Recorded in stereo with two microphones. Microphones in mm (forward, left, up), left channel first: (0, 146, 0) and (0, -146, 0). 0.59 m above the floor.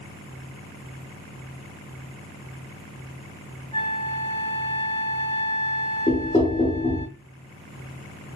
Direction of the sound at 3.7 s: 15° left (ahead or behind).